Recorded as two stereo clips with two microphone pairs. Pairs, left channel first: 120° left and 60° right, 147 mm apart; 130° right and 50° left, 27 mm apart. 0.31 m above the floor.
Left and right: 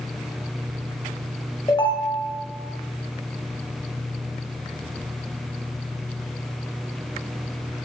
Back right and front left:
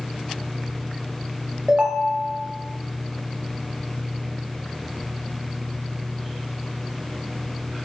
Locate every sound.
1.7 s a ringtone: 80° left, 0.6 m